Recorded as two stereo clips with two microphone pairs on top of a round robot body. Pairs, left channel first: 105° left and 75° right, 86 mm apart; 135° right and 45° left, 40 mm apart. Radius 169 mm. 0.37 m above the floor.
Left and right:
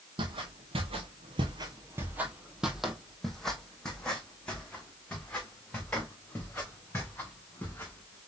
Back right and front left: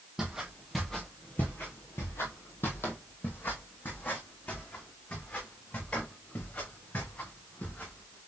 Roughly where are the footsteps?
Ahead right.